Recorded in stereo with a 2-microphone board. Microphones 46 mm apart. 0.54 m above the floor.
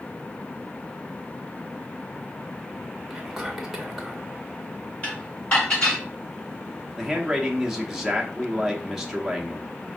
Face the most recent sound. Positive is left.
turn(degrees=-10)  # may be behind; listen again after turning